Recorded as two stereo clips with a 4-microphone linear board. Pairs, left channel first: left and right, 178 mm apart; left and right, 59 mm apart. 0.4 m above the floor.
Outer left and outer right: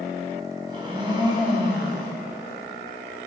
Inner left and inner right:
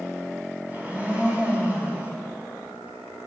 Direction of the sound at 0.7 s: 25° right (ahead or behind).